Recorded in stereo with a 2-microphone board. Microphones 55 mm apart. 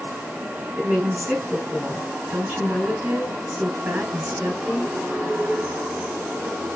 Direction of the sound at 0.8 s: 30° right (ahead or behind).